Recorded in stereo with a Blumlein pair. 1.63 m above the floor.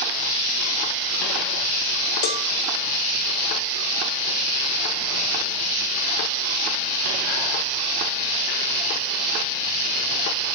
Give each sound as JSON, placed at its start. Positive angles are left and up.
{"t": 2.2, "sound": "a cowbell", "azimuth_deg": 45, "distance_m": 0.5}